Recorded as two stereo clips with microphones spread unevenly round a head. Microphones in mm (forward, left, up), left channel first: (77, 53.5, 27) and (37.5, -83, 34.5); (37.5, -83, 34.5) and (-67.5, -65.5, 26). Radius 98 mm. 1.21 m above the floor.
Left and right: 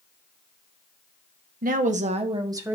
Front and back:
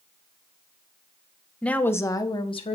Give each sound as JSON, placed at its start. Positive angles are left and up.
{"t": 1.6, "sound": "a woman speaking", "azimuth_deg": -90, "distance_m": 1.3}